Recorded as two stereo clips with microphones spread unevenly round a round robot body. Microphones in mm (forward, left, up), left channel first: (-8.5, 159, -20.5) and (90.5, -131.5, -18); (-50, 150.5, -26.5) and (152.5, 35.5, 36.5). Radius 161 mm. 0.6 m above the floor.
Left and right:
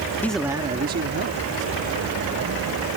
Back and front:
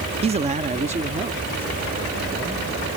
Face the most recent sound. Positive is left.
turn(degrees=-110)